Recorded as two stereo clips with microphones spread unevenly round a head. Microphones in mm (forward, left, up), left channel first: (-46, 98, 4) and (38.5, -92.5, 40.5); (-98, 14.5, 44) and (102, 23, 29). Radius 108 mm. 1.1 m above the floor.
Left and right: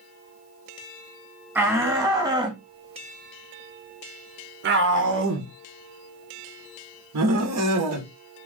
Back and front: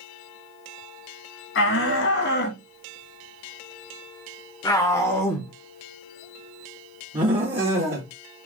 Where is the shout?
155° right, 2 m; by 8.1 s 50° right, 2.5 m.